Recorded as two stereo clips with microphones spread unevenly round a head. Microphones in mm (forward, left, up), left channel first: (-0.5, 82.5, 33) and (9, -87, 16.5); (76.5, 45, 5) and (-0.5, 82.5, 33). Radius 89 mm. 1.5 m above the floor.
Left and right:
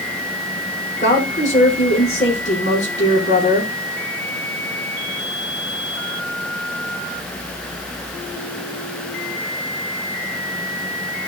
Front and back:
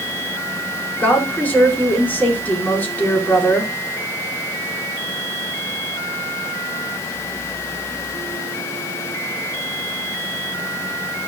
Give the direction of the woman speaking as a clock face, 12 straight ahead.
11 o'clock.